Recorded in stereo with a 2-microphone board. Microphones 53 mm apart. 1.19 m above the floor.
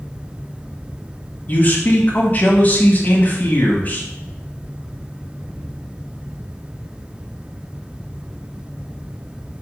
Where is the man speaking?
35° left (ahead or behind), 1.0 m.